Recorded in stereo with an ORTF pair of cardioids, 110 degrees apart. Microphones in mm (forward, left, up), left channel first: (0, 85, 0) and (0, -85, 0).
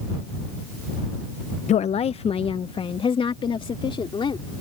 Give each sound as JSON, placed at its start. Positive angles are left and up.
{"t": 1.7, "sound": "a woman speaking", "azimuth_deg": 45}